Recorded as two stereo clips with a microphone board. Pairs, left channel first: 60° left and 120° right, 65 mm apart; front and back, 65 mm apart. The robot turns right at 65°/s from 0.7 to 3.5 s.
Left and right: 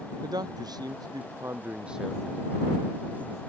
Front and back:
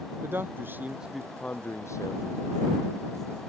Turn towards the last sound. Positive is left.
turn(degrees=60)